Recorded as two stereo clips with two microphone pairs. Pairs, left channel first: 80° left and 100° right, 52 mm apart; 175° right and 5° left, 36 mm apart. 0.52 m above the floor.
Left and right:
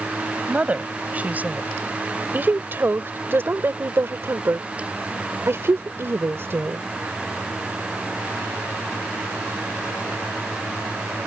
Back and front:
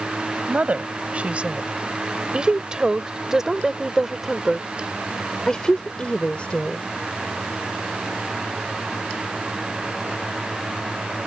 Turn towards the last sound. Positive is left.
turn(degrees=-135)